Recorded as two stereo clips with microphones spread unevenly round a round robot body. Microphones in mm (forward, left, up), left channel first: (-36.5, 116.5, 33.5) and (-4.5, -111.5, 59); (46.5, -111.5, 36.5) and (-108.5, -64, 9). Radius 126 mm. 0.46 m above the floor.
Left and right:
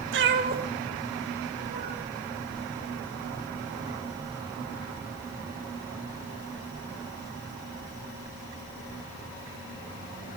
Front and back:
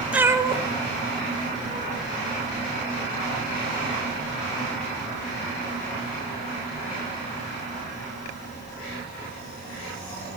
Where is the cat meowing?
115° right, 0.7 m; by 2.0 s 160° right, 1.7 m.